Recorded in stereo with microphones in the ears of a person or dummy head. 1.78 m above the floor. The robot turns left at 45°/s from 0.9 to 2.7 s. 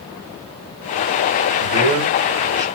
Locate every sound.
1.6 s a man speaking: 60° right (ahead or behind), 1.3 m; by 2.6 s 20° right (ahead or behind), 1.3 m